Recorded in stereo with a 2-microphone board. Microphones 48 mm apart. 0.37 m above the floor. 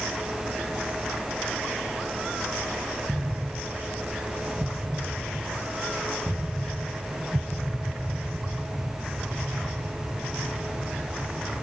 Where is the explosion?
40° right (ahead or behind).